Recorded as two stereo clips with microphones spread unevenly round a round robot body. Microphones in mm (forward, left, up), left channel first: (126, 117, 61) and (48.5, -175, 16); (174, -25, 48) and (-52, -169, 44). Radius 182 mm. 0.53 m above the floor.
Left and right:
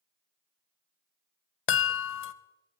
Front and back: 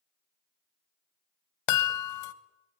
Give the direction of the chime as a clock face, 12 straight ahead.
11 o'clock.